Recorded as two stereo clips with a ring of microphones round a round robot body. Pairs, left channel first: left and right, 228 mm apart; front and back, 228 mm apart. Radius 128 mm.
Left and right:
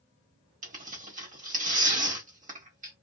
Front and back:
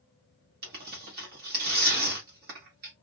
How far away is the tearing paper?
About 1.4 m.